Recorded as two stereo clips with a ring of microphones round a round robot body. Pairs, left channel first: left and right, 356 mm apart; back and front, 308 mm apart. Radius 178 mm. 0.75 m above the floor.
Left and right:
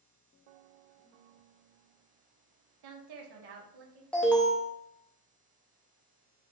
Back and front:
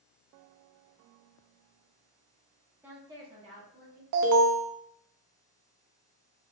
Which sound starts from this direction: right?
A woman speaking, at 2.8 s.